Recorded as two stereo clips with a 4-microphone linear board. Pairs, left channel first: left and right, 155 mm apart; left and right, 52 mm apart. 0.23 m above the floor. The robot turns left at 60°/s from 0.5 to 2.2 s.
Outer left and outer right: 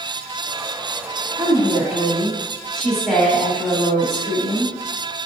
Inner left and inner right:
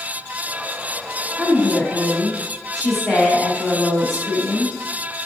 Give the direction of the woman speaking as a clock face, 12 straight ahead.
5 o'clock.